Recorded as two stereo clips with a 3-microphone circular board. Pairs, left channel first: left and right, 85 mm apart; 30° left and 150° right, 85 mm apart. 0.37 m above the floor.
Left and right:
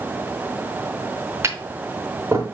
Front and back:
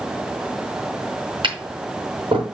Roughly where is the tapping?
Behind right.